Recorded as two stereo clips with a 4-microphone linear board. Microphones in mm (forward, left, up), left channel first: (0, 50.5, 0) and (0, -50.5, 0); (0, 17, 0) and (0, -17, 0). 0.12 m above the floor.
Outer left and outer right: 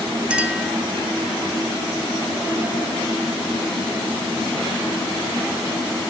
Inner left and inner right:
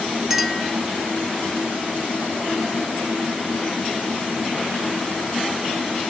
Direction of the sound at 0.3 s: 10° right (ahead or behind).